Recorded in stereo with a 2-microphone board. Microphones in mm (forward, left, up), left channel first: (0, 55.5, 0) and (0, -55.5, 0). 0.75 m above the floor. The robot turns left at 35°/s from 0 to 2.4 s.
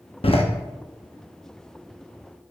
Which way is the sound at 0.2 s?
60° left (ahead or behind).